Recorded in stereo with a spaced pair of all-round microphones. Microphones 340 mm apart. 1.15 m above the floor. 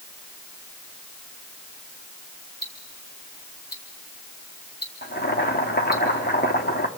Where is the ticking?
70° left (ahead or behind), 2 m.